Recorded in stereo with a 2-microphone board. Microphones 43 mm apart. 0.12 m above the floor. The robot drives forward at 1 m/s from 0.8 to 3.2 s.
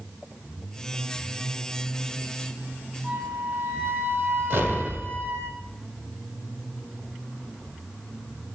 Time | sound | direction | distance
3.0 | a flute | 75° right (ahead or behind) | 3.5 m
4.5 | an explosion | 55° right (ahead or behind) | 1.2 m